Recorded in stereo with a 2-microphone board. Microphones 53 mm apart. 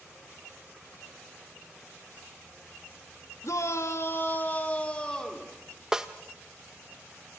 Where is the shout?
75° left (ahead or behind), 1.9 m; by 5.5 s 15° left (ahead or behind), 3.5 m.